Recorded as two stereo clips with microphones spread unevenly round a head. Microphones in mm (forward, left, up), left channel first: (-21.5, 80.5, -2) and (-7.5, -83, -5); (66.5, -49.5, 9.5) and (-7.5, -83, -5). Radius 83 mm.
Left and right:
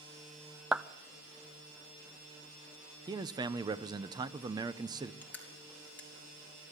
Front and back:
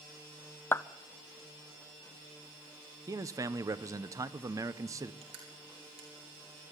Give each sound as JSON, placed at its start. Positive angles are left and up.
{"t": 0.7, "sound": "a clap", "azimuth_deg": 0, "distance_m": 0.5}
{"t": 3.1, "sound": "a man speaking", "azimuth_deg": -130, "distance_m": 0.7}
{"t": 5.2, "sound": "crushing", "azimuth_deg": 175, "distance_m": 3.5}